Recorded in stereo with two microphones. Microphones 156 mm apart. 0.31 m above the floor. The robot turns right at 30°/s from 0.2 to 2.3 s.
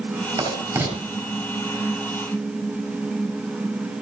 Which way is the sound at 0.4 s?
25° right (ahead or behind).